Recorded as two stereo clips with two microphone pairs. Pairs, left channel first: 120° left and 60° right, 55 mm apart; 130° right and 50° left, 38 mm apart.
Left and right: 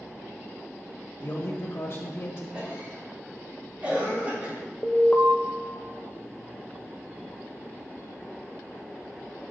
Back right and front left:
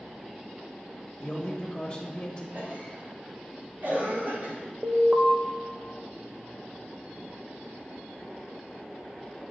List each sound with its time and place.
1.2 s a man speaking: 160° left, 1.5 m
2.5 s a cough: 10° left, 3.5 m
4.8 s an alarm: 90° left, 0.8 m